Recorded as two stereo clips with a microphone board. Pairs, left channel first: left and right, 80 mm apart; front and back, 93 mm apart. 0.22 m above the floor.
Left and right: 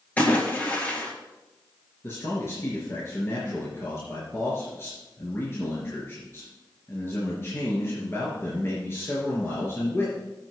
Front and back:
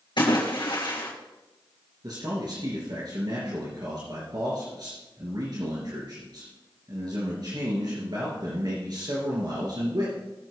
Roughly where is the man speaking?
Behind left.